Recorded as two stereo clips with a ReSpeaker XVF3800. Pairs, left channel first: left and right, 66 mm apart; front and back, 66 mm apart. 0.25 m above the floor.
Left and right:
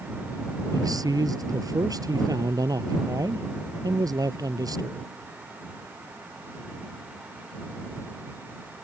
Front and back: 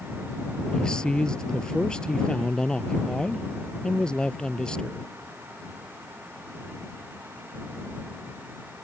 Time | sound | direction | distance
0.7 | a man speaking | 80° right | ?